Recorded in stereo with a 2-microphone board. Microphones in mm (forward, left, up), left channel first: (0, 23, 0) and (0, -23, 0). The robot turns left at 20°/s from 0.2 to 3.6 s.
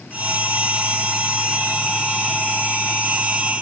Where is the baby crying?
I don't hear a baby crying.